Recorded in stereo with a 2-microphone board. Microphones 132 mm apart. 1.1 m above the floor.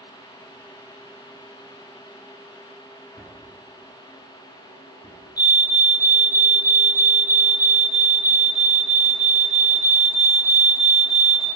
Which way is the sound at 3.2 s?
40° left (ahead or behind).